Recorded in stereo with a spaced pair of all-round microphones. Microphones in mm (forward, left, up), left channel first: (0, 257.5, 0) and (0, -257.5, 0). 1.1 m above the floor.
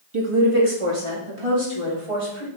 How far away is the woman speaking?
About 2 m.